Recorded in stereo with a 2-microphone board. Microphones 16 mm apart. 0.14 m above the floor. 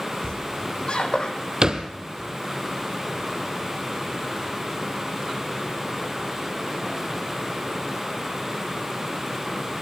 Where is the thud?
40° right (ahead or behind), 2.5 m.